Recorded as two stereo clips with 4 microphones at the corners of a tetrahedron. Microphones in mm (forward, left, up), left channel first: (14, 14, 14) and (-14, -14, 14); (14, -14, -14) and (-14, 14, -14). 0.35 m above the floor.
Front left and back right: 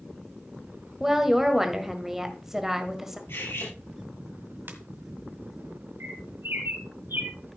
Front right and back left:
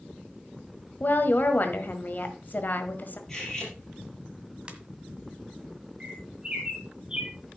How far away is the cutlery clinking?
About 4.5 m.